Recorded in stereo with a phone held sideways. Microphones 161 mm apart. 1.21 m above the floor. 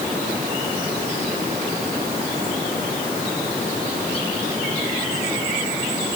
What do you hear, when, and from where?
Only background noise.